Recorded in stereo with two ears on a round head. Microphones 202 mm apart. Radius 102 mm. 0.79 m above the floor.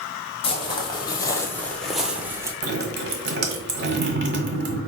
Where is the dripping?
50° right (ahead or behind), 1.3 m.